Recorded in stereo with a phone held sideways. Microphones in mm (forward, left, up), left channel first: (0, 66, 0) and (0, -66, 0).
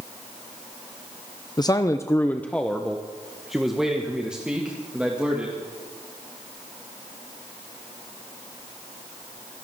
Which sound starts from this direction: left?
A man speaking, at 1.6 s.